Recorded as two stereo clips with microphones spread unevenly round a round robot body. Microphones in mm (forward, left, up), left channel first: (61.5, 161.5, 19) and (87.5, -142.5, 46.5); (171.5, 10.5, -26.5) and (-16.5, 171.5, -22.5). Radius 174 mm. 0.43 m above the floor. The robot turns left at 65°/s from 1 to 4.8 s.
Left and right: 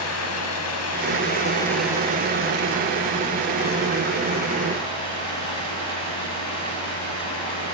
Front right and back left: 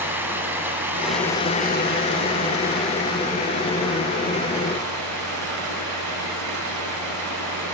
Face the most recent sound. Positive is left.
turn(degrees=170)